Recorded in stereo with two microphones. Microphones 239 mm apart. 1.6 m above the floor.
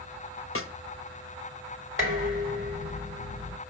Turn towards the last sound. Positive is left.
turn(degrees=-60)  # may be behind; listen again after turning